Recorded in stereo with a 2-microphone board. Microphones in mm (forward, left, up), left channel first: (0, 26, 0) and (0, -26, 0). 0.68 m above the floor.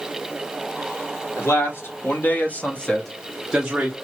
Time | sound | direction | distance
1.4 | a man speaking | 60° left (ahead or behind) | 1.7 m